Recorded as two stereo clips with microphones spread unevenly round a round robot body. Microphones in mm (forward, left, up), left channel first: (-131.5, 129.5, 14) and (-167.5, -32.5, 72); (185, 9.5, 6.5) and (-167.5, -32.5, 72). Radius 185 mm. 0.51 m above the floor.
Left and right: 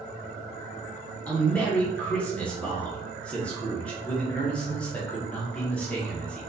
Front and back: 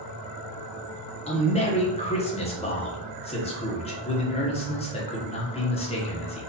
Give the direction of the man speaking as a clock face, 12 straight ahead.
11 o'clock.